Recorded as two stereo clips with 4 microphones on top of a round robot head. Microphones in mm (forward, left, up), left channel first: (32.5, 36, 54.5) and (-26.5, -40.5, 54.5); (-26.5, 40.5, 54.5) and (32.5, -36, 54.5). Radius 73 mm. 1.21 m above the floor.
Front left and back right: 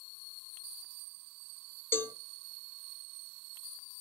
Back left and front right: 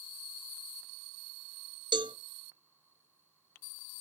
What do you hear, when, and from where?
1.9 s a cowbell: 15° right, 0.6 m